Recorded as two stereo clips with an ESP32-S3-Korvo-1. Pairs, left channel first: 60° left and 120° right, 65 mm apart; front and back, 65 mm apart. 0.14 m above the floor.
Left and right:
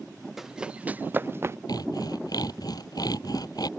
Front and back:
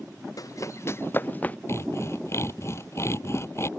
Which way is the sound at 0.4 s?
35° right.